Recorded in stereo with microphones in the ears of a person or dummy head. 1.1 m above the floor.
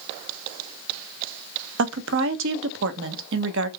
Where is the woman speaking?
70° right (ahead or behind), 0.6 m.